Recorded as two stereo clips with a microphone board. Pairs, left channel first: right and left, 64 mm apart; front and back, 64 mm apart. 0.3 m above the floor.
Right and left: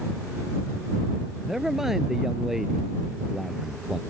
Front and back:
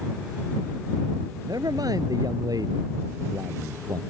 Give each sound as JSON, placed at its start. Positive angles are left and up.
{"t": 1.5, "sound": "a man speaking", "azimuth_deg": 175}